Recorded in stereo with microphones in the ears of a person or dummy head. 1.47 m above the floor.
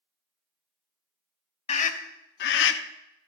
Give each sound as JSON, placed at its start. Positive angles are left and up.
{"t": 1.7, "sound": "a scream", "side_deg": 40, "distance_m": 1.4}